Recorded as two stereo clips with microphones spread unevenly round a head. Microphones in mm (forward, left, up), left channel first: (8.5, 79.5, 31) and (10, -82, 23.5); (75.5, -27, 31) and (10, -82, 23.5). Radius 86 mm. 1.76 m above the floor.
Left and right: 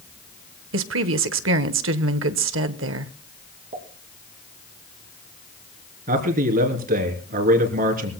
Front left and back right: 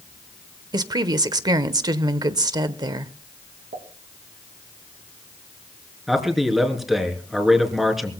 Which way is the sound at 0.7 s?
100° right.